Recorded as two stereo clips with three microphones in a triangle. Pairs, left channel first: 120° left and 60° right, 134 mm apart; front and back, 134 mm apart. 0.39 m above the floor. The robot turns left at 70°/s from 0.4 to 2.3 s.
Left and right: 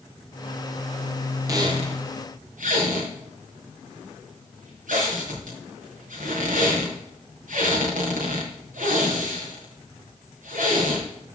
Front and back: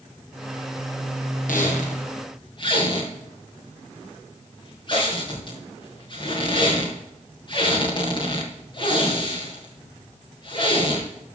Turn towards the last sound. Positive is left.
turn(degrees=-55)